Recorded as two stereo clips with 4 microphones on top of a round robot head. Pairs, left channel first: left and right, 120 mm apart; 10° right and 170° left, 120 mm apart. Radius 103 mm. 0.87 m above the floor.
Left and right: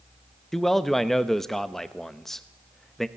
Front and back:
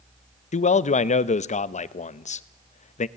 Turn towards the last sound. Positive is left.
turn(degrees=5)